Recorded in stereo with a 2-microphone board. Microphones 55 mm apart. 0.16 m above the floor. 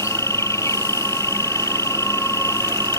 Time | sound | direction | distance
0.0 | an insect | 75° left (ahead or behind) | ?